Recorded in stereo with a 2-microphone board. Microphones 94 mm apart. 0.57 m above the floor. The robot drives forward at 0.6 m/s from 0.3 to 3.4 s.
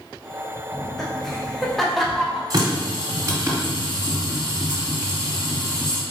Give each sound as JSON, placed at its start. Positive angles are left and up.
{"t": 0.7, "sound": "laughter", "side_deg": 0, "distance_m": 0.9}
{"t": 2.5, "sound": "a running tap", "side_deg": -40, "distance_m": 1.6}